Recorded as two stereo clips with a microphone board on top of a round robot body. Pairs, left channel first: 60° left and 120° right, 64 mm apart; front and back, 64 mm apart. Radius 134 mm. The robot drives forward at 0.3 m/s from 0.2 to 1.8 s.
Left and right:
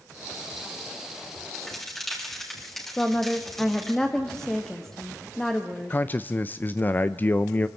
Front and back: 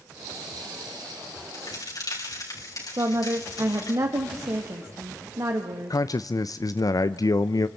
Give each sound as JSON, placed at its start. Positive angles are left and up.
{"t": 1.5, "sound": "a crack", "azimuth_deg": -20, "distance_m": 6.0}
{"t": 3.0, "sound": "a woman speaking", "azimuth_deg": 145, "distance_m": 1.9}
{"t": 5.9, "sound": "a man speaking", "azimuth_deg": 5, "distance_m": 0.6}